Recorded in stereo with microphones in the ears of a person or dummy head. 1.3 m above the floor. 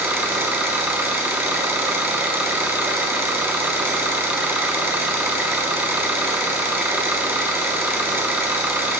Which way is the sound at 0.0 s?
10° right (ahead or behind).